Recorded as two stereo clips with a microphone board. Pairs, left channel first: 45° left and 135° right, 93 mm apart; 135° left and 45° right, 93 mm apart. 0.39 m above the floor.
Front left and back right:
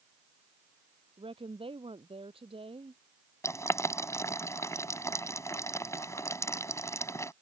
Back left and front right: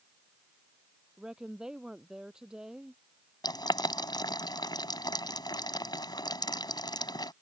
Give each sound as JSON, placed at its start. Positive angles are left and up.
{"t": 1.2, "sound": "a woman speaking", "azimuth_deg": -125}
{"t": 3.4, "sound": "boiling", "azimuth_deg": 100}